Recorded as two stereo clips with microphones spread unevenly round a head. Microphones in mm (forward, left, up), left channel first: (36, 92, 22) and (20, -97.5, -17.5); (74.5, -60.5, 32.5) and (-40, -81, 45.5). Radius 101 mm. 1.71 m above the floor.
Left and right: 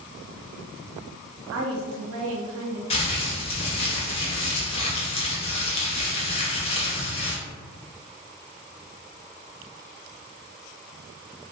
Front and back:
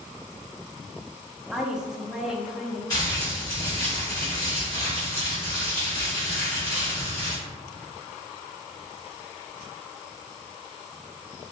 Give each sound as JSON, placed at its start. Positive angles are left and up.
{"t": 1.5, "sound": "a woman speaking", "azimuth_deg": -90, "distance_m": 0.5}
{"t": 2.9, "sound": "crumpling", "azimuth_deg": 80, "distance_m": 0.6}